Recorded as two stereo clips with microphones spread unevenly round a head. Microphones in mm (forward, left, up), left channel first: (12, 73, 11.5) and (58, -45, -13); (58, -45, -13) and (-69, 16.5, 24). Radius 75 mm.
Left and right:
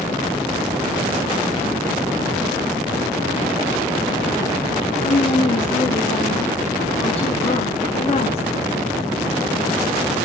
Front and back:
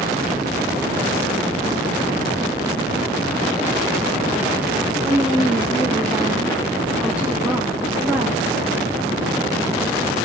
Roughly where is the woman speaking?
Left.